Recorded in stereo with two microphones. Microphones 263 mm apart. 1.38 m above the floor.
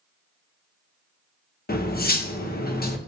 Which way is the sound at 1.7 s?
35° left (ahead or behind).